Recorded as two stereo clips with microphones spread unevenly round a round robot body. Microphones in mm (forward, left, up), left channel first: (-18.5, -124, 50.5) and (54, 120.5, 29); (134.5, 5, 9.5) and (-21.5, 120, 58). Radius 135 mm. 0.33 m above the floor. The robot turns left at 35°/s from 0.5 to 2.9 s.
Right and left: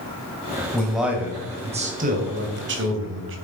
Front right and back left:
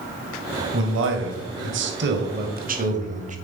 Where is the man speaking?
165° left, 2.5 m; by 3.4 s 90° left, 2.5 m.